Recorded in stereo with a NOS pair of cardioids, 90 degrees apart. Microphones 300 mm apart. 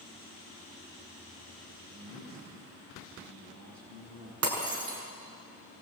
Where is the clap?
No clap in this recording.